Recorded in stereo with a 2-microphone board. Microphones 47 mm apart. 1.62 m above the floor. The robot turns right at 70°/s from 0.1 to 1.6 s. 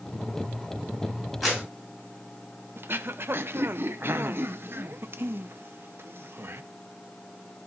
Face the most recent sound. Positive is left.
turn(degrees=-55)  # may be behind; listen again after turning